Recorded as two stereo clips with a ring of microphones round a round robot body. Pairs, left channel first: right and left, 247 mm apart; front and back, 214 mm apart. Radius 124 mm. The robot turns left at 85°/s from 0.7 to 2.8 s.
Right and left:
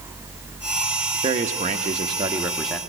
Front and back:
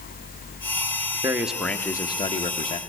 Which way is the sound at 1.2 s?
120° left.